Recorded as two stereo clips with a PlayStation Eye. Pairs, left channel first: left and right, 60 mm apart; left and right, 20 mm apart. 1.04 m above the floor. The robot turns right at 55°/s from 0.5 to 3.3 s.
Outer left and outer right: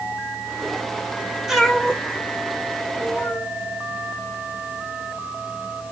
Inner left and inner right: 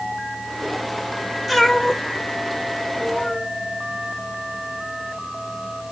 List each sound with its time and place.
1.5 s a cat meowing: 5° right (ahead or behind), 1.7 m; by 3.5 s 65° left (ahead or behind), 1.7 m